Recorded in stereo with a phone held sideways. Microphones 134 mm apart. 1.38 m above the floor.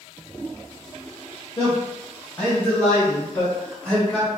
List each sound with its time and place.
1.6 s a man speaking: 20° left (ahead or behind), 1.4 m; by 4.3 s 10° left (ahead or behind), 3 m